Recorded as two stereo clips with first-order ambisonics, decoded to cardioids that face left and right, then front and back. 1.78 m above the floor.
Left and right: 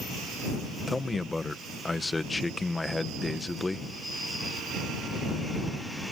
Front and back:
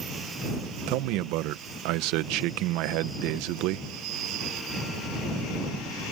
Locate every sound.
0.9 s a man speaking: 175° left